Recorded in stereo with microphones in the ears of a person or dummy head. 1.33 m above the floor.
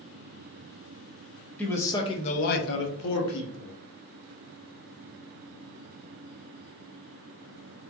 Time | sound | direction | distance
1.6 | a man speaking | 5° left (ahead or behind) | 0.7 m